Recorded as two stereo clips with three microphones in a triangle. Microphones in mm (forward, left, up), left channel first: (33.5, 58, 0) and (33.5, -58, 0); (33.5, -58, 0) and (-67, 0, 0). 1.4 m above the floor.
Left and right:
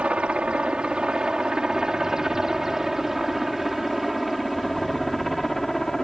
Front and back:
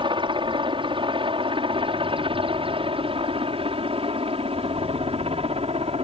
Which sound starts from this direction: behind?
A helicopter, at 0.0 s.